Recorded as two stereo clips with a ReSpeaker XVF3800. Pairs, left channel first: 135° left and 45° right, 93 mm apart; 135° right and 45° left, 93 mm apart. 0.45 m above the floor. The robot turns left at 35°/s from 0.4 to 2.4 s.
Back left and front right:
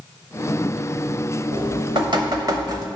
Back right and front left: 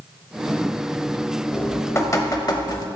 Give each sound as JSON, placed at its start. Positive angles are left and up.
{"t": 1.5, "sound": "dripping", "azimuth_deg": -60, "distance_m": 0.7}